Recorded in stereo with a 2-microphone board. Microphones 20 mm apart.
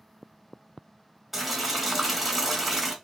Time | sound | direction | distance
1.3 | boiling | 15° right (ahead or behind) | 0.9 m